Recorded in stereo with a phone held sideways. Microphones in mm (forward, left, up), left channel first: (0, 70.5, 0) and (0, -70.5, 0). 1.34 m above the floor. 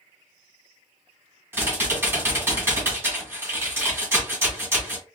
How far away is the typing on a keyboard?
About 1.8 m.